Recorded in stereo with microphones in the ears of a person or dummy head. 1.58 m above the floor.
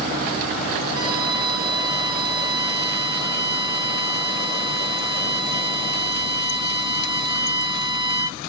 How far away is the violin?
About 1.6 m.